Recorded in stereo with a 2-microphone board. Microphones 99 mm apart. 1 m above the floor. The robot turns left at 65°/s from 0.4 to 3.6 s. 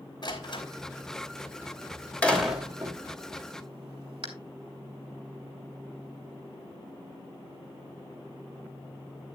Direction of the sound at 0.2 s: 45° left (ahead or behind).